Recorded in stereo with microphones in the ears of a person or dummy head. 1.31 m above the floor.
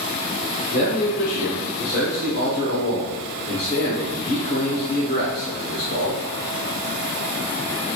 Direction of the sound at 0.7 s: 40° left (ahead or behind).